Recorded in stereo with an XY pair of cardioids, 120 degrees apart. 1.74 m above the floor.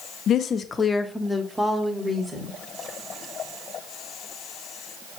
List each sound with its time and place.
0.3 s a woman speaking: 55° left, 0.6 m; by 2.6 s 20° right, 1.5 m